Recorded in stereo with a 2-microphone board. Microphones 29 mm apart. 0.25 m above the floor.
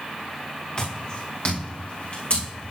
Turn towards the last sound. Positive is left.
turn(degrees=55)  # may be behind; listen again after turning